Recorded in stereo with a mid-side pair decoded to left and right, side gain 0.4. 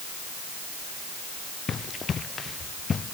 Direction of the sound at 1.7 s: 50° left.